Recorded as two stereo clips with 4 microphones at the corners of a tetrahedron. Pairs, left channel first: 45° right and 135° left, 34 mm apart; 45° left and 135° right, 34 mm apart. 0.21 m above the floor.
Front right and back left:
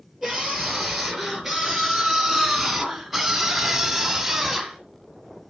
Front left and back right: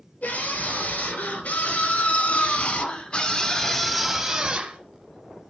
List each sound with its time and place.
0.2 s a scream: 45° left, 4 m; by 4.8 s 150° right, 1.5 m